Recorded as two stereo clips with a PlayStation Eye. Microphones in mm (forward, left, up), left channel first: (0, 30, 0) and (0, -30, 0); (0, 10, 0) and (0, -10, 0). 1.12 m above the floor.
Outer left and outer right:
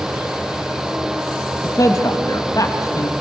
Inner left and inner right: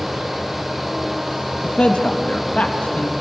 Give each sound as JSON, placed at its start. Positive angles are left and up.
{"t": 1.6, "sound": "a man speaking", "side_deg": 70, "distance_m": 1.7}